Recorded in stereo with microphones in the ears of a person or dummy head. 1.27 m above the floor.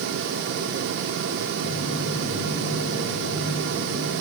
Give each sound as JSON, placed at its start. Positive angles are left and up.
{"t": 1.6, "sound": "footsteps", "side_deg": 45, "distance_m": 3.0}